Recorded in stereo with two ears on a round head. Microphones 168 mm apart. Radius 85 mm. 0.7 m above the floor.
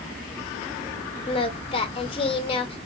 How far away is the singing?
About 0.6 m.